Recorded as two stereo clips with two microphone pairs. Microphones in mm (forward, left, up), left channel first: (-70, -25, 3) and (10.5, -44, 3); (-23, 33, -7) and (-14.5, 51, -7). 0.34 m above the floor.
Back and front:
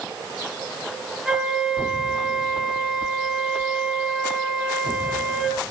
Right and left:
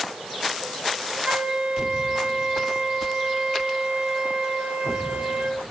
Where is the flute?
70° left, 5 m.